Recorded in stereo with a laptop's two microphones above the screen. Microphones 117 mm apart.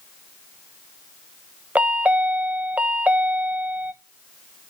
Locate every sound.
1.8 s a chime: 10° right (ahead or behind), 0.7 m